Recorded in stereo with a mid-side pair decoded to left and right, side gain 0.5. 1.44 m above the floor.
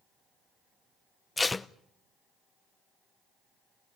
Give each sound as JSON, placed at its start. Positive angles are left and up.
{"t": 1.4, "sound": "tape being pulled", "azimuth_deg": 20, "distance_m": 0.7}